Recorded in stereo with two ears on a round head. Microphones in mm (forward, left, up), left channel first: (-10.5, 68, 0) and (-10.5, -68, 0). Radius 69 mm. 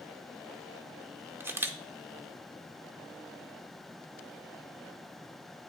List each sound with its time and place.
1.4 s a camera shutter: 15° right (ahead or behind), 0.6 m